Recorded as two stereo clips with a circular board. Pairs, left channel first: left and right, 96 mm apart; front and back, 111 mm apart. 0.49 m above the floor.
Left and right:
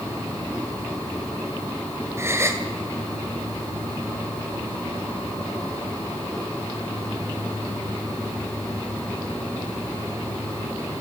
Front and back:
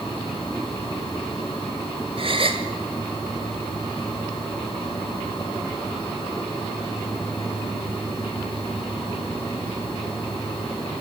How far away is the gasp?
About 1.7 m.